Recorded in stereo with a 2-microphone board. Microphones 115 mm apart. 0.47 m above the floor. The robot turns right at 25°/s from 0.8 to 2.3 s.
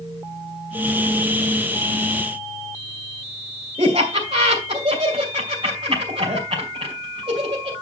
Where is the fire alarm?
No fire alarm in this recording.